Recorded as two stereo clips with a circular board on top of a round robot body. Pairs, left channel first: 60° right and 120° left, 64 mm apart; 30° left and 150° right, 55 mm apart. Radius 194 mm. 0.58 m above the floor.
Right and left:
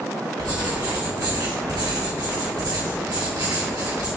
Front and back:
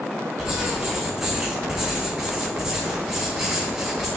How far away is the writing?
About 3 m.